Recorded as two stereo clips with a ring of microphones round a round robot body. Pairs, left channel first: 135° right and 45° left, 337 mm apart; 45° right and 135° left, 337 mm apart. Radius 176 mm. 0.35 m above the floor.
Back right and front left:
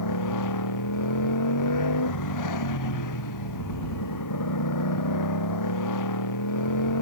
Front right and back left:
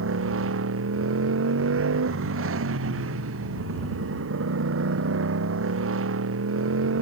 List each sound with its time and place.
0.0 s a motorcycle: 170° right